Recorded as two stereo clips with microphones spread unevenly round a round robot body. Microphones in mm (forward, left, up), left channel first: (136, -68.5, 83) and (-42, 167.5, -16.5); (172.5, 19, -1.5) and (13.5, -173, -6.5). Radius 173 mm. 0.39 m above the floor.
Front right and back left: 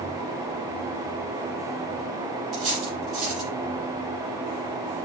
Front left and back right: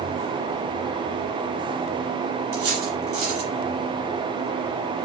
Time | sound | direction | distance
2.5 | cutlery clinking | 145° right | 7 m